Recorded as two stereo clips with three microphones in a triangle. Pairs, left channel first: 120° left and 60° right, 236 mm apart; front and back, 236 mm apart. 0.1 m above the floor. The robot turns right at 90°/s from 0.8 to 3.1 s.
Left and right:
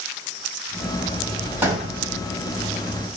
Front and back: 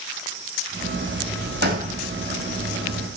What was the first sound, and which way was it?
A gunshot, 145° right.